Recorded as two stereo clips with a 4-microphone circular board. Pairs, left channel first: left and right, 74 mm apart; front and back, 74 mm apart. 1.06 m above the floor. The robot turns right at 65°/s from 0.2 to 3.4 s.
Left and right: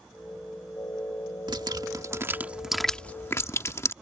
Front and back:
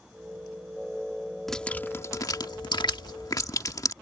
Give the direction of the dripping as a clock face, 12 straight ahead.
3 o'clock.